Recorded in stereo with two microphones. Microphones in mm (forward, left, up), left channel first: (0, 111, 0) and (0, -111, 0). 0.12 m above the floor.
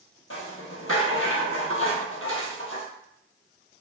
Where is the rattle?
70° left (ahead or behind), 0.9 m.